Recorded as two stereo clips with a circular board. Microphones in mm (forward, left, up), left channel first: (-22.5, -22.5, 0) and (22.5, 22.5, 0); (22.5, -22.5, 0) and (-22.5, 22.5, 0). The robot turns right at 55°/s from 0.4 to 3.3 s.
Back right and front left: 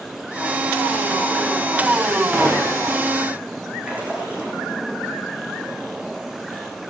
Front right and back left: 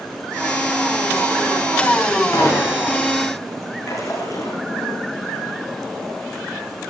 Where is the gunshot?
30° right, 6 m; by 3.0 s 5° left, 6 m.